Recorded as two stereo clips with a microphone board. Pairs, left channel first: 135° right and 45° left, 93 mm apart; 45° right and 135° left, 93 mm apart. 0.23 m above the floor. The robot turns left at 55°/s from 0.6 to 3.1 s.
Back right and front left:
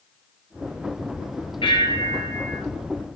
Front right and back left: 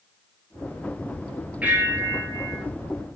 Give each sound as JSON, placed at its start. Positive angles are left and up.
{"t": 1.6, "sound": "a bell", "azimuth_deg": -150, "distance_m": 1.2}